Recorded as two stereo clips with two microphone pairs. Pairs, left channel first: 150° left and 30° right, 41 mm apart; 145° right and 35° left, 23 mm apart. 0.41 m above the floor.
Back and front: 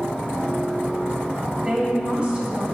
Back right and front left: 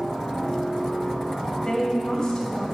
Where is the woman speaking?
85° right, 2 m.